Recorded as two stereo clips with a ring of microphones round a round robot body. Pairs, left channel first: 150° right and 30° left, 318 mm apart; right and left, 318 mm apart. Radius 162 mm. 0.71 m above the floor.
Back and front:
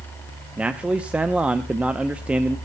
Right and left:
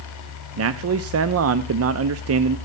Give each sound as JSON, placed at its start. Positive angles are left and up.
{"t": 0.6, "sound": "a man speaking", "azimuth_deg": 115, "distance_m": 0.6}